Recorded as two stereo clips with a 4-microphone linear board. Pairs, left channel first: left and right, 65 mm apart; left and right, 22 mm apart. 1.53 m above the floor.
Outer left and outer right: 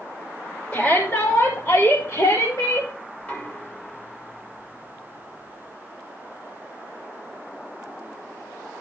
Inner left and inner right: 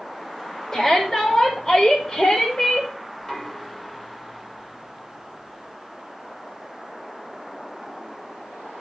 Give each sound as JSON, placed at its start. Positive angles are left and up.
{"t": 0.7, "sound": "a shout", "side_deg": 25, "distance_m": 2.0}
{"t": 3.2, "sound": "knocking", "side_deg": 25, "distance_m": 2.0}